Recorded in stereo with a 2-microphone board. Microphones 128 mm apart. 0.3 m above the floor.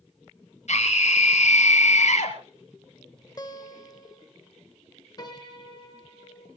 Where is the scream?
60° left (ahead or behind), 6 m.